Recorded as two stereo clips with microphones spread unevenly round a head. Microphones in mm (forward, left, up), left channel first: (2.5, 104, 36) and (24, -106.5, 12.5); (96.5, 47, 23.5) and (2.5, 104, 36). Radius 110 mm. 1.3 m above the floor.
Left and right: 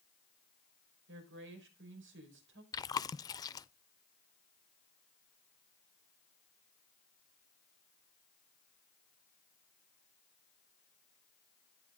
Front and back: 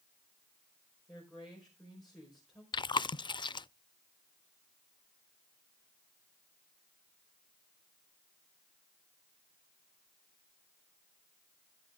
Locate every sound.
1.1 s a woman speaking: 120° right, 5 m
2.7 s chewing: 20° left, 0.5 m